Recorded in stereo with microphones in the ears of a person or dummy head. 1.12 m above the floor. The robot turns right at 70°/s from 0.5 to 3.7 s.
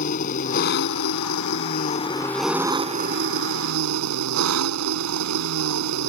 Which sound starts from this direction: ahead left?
An engine running, at 0.0 s.